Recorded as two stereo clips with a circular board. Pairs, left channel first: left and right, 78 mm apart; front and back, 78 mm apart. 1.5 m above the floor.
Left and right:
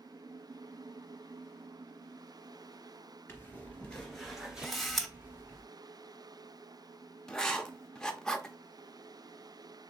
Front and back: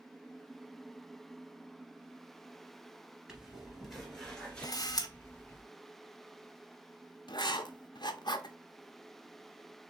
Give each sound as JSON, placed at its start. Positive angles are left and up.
{"t": 3.3, "sound": "footsteps", "azimuth_deg": 110, "distance_m": 1.6}
{"t": 4.6, "sound": "a camera shutter", "azimuth_deg": 5, "distance_m": 0.8}
{"t": 7.3, "sound": "writing", "azimuth_deg": 10, "distance_m": 0.7}